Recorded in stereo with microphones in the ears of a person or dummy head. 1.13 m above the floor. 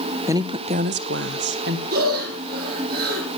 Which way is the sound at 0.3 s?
15° right (ahead or behind).